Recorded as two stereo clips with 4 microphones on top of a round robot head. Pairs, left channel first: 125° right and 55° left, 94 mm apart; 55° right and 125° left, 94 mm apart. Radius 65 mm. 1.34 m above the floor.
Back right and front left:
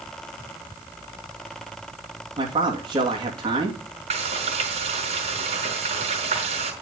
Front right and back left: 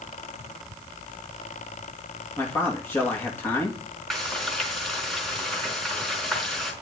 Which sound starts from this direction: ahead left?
Frying, at 4.1 s.